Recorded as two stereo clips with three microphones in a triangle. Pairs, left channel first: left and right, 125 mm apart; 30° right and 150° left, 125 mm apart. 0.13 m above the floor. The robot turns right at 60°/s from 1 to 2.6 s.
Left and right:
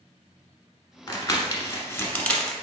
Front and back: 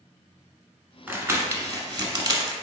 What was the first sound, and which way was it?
Crumpling, 85° left.